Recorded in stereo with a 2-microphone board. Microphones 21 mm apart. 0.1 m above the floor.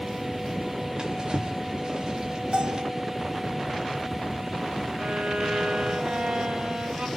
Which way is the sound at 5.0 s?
65° right (ahead or behind).